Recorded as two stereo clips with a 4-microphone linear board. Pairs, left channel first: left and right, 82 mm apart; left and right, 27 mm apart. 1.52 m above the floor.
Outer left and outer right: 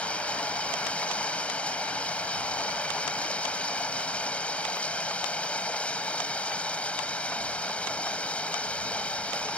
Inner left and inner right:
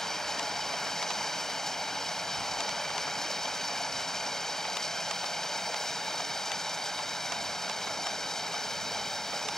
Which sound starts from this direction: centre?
Running water, at 0.0 s.